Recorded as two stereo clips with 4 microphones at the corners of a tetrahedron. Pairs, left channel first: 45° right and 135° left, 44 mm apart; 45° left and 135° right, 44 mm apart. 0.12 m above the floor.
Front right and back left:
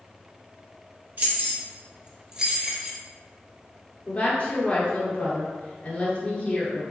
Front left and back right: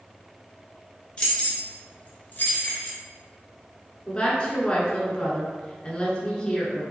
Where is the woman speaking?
5° right, 1.4 m.